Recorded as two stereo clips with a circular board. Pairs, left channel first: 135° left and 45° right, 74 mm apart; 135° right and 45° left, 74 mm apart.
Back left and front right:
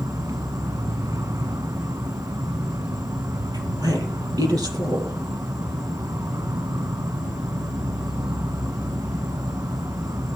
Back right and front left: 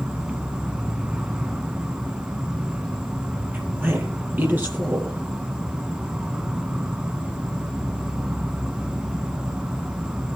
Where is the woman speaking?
15° right, 6.5 m.